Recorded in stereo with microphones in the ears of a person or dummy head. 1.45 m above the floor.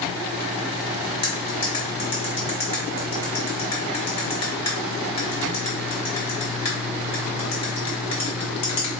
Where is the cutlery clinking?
35° left (ahead or behind), 1.0 m.